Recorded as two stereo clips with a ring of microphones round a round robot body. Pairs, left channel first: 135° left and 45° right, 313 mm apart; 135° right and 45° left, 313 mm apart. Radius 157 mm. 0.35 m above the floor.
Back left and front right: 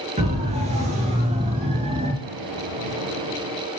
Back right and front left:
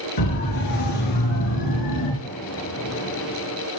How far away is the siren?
About 9 m.